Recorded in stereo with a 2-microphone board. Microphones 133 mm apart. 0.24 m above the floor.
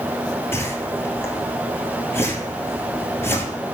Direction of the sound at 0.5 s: 20° left (ahead or behind).